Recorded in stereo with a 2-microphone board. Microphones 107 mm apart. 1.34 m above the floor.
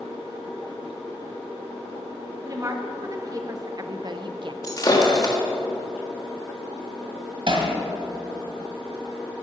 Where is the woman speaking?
30° right (ahead or behind), 1.7 m; by 4.5 s 50° right (ahead or behind), 0.6 m.